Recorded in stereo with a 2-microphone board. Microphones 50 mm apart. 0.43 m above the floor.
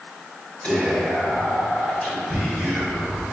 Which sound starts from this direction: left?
Whispering, at 0.6 s.